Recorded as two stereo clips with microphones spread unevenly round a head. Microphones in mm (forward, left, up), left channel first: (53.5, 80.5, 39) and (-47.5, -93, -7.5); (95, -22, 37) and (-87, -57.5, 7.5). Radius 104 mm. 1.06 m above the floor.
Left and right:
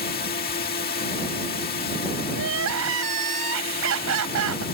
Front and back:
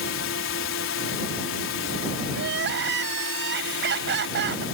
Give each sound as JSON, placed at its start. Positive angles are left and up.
{"t": 0.0, "sound": "a drone", "azimuth_deg": 10}
{"t": 2.3, "sound": "crying", "azimuth_deg": -140}